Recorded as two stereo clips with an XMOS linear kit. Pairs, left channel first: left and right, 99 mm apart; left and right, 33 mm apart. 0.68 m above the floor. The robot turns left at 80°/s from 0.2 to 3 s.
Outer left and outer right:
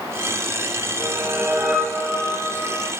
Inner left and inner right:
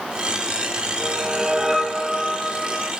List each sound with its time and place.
1.0 s a whoosh: 110° right, 1.1 m; by 2.9 s 100° left, 1.1 m